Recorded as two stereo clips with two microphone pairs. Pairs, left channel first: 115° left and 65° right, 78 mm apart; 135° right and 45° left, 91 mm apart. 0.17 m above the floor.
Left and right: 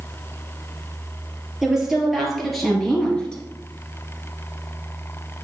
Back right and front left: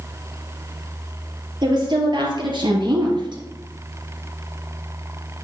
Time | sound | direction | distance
1.6 | a woman speaking | 20° left | 3.5 m